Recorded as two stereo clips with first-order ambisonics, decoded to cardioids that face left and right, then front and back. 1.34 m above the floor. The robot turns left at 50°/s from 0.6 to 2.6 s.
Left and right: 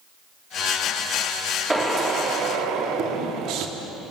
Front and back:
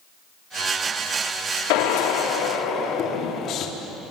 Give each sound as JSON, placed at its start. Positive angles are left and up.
{"t": 1.7, "sound": "a drill", "azimuth_deg": -5, "distance_m": 3.0}